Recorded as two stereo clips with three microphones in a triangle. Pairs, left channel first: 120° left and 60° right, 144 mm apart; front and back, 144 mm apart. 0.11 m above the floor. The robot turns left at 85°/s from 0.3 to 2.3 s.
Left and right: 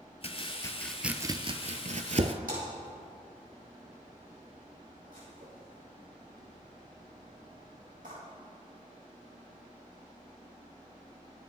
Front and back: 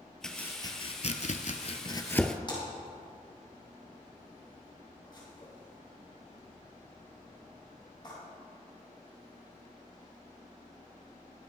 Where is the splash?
55° right, 4.5 m.